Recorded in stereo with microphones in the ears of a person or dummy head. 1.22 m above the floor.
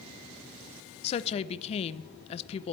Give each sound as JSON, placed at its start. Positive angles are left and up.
{"t": 1.0, "sound": "a woman speaking", "side_deg": 40, "distance_m": 0.5}